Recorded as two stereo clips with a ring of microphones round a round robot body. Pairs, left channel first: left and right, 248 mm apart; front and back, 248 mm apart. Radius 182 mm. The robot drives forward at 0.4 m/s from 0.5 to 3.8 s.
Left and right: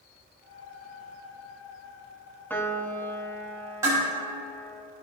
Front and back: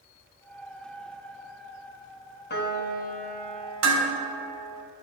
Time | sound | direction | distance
2.5 | a piano | 10° left | 1.1 m
3.8 | dishes clattering | 170° right | 2 m